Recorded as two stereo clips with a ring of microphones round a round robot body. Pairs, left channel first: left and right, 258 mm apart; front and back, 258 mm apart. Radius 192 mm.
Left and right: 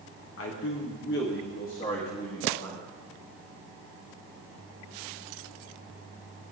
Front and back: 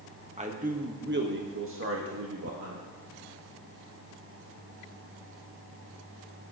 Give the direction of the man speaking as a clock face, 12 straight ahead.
8 o'clock.